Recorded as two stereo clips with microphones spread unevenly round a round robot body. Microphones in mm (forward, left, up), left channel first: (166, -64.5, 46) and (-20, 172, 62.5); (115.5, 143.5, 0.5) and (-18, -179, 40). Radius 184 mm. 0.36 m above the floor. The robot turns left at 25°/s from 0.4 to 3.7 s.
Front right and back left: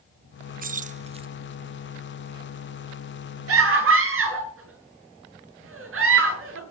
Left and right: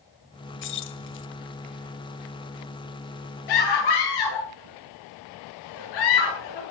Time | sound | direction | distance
0.6 | keys jangling | 75° left | 0.7 m
3.5 | a scream | 90° left | 8 m